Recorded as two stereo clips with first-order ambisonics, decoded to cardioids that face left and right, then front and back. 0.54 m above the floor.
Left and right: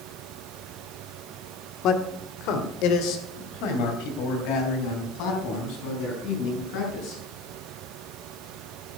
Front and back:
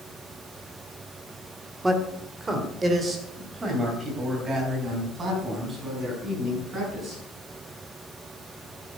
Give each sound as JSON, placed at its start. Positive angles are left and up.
{"t": 1.8, "sound": "a man speaking", "azimuth_deg": 105, "distance_m": 1.4}